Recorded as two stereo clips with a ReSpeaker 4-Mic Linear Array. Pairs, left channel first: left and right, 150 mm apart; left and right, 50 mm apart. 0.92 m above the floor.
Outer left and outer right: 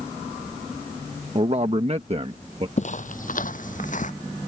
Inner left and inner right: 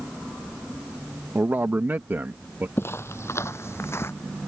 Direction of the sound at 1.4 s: 40° right (ahead or behind).